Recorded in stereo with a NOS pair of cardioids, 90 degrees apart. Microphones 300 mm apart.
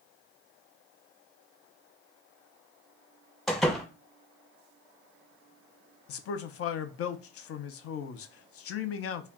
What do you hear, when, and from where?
3.5 s a door slam: straight ahead, 0.7 m
6.1 s a man speaking: 50° left, 0.5 m